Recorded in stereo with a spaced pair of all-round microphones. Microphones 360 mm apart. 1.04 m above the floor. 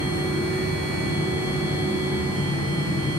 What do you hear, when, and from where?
0.0 s a machine running: 5° right (ahead or behind), 1.3 m